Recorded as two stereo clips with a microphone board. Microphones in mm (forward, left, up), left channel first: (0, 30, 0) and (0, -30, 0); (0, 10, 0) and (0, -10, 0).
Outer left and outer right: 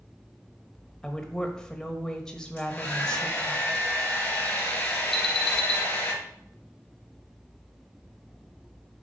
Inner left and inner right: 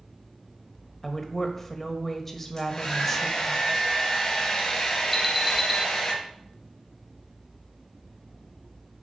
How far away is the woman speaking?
About 1.1 m.